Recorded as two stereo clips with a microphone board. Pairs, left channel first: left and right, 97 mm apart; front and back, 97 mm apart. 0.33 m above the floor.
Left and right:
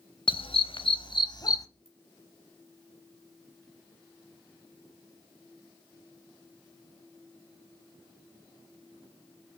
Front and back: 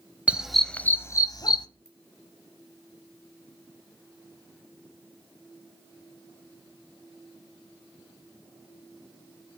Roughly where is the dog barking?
Left.